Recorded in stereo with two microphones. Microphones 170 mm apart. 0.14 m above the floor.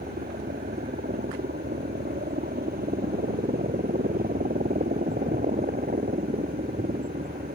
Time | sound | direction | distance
0.0 | a helicopter | 65° right (ahead or behind) | ?